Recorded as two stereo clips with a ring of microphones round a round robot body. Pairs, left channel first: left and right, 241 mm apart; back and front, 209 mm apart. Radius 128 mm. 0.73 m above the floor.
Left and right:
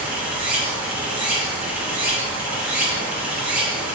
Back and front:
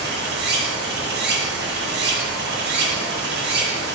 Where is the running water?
5° right, 0.8 m.